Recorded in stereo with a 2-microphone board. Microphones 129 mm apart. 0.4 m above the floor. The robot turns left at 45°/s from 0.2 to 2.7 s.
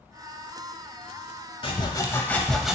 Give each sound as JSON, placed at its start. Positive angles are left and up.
{"t": 1.6, "sound": "sawing", "azimuth_deg": 45, "distance_m": 0.6}